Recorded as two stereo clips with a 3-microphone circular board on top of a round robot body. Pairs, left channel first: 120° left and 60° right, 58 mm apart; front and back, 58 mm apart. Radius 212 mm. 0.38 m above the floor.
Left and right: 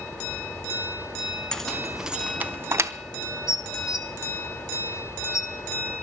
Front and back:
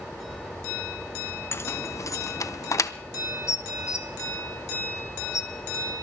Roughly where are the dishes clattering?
Ahead left.